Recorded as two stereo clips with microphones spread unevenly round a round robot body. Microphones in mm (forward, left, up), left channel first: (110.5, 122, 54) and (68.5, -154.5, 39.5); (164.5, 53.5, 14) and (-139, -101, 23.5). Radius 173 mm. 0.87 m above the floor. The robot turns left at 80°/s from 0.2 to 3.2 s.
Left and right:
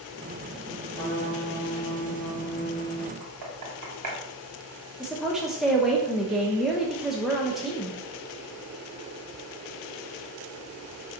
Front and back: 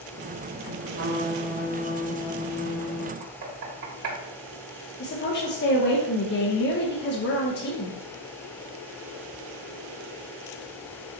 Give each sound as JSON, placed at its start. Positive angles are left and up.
{"t": 0.9, "sound": "a trumpet", "azimuth_deg": 160, "distance_m": 0.9}
{"t": 3.2, "sound": "knocking", "azimuth_deg": -110, "distance_m": 2.0}
{"t": 5.0, "sound": "a woman speaking", "azimuth_deg": -15, "distance_m": 0.9}